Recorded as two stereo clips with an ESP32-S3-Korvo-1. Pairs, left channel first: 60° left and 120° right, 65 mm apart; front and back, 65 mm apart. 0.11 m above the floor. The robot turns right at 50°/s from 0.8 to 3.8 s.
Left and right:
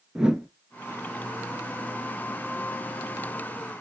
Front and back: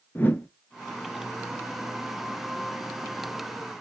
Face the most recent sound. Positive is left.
turn(degrees=100)